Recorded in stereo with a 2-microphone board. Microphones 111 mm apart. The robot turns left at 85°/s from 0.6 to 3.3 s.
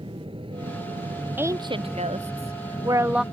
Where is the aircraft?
60° right; by 3.3 s 70° left.